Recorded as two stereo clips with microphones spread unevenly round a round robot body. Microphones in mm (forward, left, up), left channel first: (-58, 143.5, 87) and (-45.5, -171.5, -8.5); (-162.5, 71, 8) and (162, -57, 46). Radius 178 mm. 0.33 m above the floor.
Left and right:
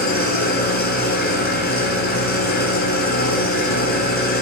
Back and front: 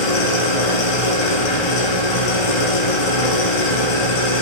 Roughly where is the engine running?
Behind left.